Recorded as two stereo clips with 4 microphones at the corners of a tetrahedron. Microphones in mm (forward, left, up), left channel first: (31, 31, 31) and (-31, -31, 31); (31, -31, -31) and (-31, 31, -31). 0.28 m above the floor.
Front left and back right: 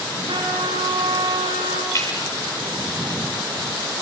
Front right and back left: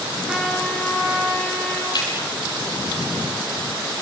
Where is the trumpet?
145° right, 8 m.